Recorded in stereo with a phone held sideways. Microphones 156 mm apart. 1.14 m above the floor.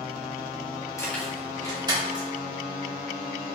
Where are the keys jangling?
20° left (ahead or behind), 1.2 m; by 2.3 s 35° right (ahead or behind), 2.5 m.